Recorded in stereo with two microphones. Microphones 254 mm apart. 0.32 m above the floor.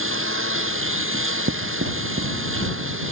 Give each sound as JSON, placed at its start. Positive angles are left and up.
{"t": 0.0, "sound": "a lawn mower", "side_deg": -55}
{"t": 1.1, "sound": "writing", "side_deg": -55}